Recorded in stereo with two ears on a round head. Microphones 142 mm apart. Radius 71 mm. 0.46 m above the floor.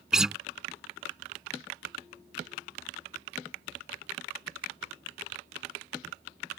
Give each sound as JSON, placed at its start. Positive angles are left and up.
{"t": 0.1, "sound": "a guitar", "side_deg": -5}